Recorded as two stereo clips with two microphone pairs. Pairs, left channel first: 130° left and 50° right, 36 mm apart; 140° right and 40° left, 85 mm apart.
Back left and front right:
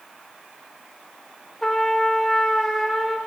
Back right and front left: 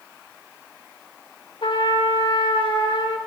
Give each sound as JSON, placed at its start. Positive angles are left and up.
{"t": 1.6, "sound": "a trumpet", "azimuth_deg": -150, "distance_m": 1.3}